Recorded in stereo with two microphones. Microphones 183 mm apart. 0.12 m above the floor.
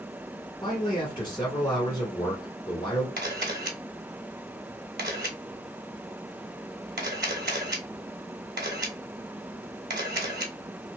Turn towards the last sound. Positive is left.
turn(degrees=-70)  # may be behind; listen again after turning